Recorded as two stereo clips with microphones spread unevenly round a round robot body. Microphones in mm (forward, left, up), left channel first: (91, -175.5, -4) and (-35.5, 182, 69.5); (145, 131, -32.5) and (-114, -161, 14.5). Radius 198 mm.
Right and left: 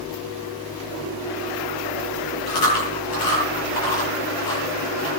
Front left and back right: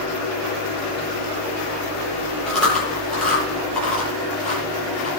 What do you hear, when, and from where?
2.5 s chewing: 40° right, 8.5 m